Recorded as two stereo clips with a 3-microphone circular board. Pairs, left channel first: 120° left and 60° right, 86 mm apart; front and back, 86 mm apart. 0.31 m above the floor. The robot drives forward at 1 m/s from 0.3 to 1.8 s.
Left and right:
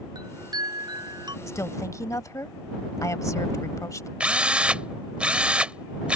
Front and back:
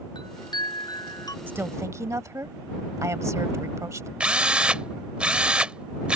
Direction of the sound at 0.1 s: 25° right.